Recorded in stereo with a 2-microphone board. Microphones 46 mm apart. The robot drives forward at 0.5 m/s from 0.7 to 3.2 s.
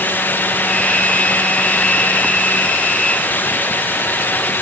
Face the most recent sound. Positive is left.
No sound to turn to.